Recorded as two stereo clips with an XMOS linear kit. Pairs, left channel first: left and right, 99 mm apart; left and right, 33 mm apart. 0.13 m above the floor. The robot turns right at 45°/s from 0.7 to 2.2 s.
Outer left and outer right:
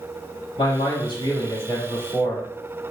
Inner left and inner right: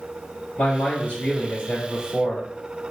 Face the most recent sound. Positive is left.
turn(degrees=165)